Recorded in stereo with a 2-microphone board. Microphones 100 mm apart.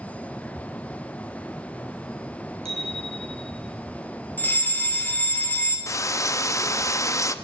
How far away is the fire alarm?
About 3 m.